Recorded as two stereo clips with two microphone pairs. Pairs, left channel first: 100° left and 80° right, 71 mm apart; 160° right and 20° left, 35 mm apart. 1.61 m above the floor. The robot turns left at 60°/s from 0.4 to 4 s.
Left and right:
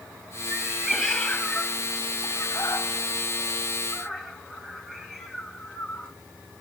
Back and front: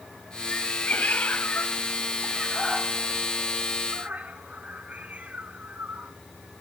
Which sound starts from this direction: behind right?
A cat meowing, at 0.5 s.